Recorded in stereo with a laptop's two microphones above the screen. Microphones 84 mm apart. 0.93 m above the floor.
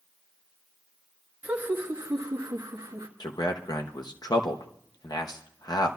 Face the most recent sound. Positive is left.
turn(degrees=50)  # may be behind; listen again after turning